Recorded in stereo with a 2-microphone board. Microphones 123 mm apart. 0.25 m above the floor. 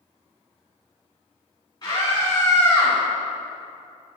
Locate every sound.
1.8 s a scream: 35° left (ahead or behind), 3 m; by 3.0 s 15° left (ahead or behind), 2 m